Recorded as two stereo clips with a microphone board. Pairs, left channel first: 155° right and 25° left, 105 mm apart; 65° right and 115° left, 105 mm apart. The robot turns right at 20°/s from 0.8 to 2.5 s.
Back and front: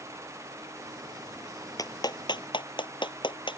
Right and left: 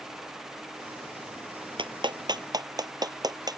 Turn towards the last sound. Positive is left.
turn(degrees=165)